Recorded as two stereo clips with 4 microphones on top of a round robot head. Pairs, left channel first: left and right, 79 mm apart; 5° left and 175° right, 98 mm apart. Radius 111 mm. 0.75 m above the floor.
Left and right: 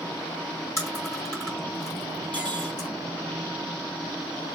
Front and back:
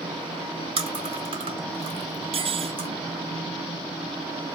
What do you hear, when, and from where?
0.8 s chewing: 155° left, 4 m
2.3 s cutlery clinking: 165° left, 1.2 m